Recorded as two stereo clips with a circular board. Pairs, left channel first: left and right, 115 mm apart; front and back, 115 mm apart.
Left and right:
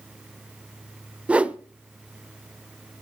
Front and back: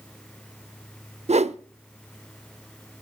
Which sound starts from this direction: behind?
A whoosh, at 1.3 s.